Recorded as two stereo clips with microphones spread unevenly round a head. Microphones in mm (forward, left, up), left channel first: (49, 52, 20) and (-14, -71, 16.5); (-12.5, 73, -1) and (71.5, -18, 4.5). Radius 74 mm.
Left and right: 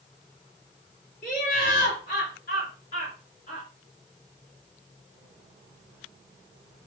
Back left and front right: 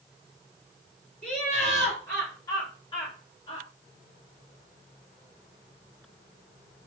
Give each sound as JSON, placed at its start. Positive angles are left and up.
{"t": 1.2, "sound": "laughter", "azimuth_deg": 60, "distance_m": 2.5}